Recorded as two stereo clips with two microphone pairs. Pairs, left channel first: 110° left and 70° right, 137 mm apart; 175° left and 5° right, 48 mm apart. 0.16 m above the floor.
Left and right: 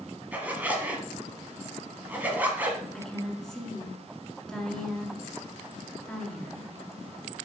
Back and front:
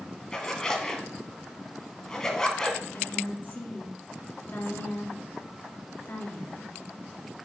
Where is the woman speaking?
165° right, 1.7 m.